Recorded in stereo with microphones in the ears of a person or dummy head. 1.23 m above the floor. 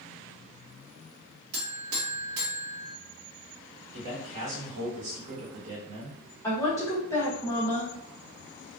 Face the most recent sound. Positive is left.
turn(degrees=15)  # may be behind; listen again after turning